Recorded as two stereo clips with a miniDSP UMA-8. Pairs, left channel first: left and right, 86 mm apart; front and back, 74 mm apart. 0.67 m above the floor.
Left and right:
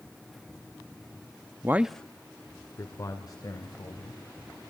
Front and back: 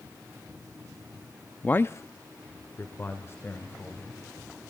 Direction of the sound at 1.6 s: 60° right.